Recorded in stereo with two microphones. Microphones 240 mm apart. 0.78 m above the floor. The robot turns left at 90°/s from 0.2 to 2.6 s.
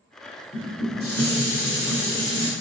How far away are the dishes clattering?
About 1.7 m.